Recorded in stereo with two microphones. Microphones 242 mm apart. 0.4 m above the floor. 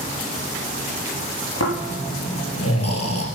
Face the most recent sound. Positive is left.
turn(degrees=85)